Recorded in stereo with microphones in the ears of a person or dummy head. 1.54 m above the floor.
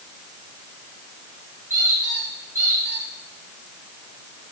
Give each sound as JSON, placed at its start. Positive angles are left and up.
{"t": 1.7, "sound": "a squeak", "side_deg": -15, "distance_m": 3.5}